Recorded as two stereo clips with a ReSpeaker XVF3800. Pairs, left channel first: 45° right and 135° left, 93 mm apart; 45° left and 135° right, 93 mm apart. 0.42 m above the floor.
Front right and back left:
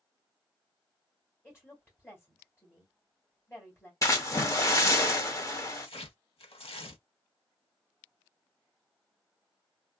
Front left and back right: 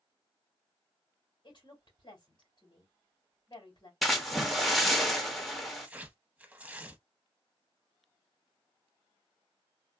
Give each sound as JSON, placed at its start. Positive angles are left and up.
{"t": 1.4, "sound": "a woman speaking", "azimuth_deg": 10, "distance_m": 2.5}
{"t": 4.0, "sound": "a splash", "azimuth_deg": -45, "distance_m": 0.8}
{"t": 5.8, "sound": "tearing paper", "azimuth_deg": -60, "distance_m": 0.7}